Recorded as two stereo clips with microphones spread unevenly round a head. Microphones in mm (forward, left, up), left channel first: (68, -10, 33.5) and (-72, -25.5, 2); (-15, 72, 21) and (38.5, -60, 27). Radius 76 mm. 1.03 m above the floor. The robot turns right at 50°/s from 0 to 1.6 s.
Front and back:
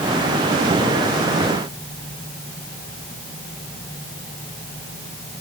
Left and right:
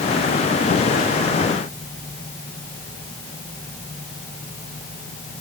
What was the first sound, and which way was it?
Only background noise.